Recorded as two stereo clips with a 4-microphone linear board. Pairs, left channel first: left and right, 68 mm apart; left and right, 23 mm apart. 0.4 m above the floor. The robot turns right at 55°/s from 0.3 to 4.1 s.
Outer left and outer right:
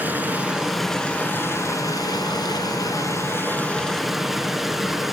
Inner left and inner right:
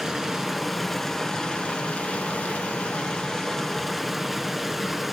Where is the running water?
25° right, 5.5 m; by 5.1 s straight behind, 5.5 m.